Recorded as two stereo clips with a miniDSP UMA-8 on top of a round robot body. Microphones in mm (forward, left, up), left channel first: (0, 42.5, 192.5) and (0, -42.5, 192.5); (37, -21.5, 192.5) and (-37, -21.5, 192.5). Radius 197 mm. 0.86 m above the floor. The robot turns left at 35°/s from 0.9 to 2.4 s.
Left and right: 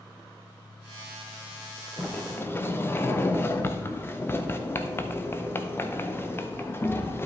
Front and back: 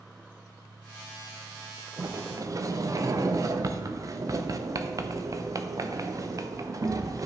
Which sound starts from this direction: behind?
A sliding door, at 2.0 s.